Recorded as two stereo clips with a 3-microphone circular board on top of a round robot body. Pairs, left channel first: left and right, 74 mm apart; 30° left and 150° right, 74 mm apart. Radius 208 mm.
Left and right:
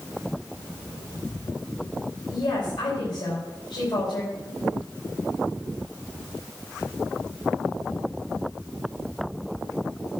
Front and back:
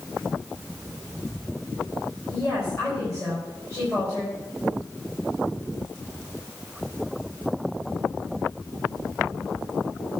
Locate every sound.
2.3 s a woman speaking: 95° left, 4.5 m